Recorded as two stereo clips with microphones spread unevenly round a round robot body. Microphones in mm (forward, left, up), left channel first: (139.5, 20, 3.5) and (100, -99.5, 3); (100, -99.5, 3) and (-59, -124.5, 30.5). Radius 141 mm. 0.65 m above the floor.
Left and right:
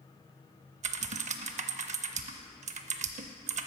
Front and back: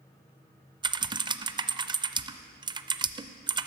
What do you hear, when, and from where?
0.8 s typing on a keyboard: 115° right, 0.5 m